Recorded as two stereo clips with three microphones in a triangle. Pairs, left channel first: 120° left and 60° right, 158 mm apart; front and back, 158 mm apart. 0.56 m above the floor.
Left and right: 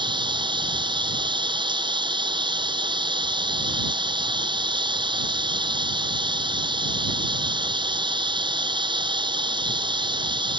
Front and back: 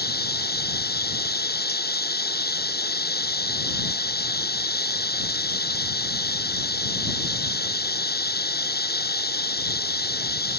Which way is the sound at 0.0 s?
Straight ahead.